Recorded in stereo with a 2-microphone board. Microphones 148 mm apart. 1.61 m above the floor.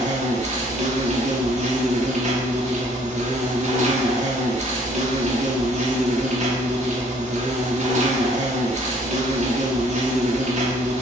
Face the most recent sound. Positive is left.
turn(degrees=-50)  # may be behind; listen again after turning